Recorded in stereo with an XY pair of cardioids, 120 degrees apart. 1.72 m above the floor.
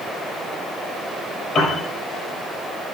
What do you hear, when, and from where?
1.6 s a piano: 50° left, 5.5 m